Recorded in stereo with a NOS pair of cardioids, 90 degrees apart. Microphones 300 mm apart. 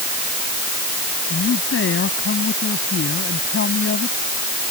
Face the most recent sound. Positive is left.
turn(degrees=45)